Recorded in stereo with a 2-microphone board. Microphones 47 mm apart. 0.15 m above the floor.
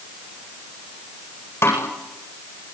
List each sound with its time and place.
1.6 s a snare drum: 65° left (ahead or behind), 8.5 m